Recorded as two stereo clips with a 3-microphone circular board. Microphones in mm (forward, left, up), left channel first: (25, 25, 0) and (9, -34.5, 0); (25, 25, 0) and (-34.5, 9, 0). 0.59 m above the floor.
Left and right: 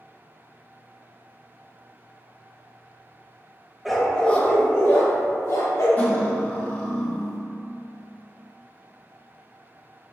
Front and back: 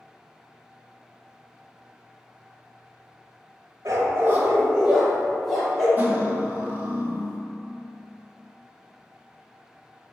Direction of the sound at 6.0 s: 135° left.